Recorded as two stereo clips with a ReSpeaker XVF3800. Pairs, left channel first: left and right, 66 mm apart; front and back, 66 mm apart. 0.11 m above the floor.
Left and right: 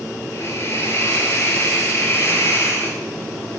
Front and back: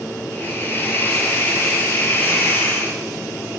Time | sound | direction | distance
0.3 | a hiss | 50° left | 0.7 m